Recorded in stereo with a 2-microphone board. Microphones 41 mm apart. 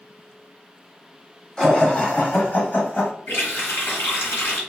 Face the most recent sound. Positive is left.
turn(degrees=65)  # may be behind; listen again after turning